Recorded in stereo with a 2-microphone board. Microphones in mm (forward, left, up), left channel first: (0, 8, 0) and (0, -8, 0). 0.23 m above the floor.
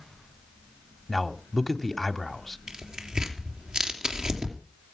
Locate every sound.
1.1 s a man speaking: 15° left (ahead or behind), 1.1 m
2.7 s tearing paper: 60° right (ahead or behind), 3 m